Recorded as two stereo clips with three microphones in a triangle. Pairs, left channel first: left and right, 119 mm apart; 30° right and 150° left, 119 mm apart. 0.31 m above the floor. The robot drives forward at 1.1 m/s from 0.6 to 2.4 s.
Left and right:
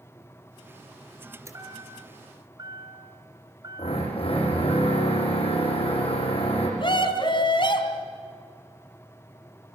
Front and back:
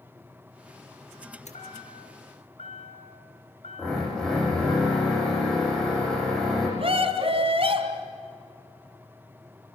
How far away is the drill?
About 9.5 m.